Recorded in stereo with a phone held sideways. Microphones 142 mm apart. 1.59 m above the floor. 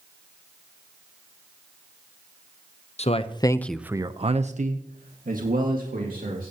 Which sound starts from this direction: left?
A man speaking, at 3.0 s.